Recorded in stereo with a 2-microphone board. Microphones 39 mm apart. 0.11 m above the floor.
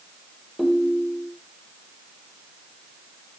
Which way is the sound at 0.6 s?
5° right (ahead or behind).